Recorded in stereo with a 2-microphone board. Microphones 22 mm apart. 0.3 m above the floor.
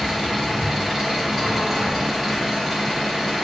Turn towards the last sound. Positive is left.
turn(degrees=-10)  # may be behind; listen again after turning